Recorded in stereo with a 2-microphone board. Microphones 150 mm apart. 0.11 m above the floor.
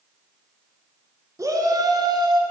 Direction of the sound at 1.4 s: 20° right (ahead or behind).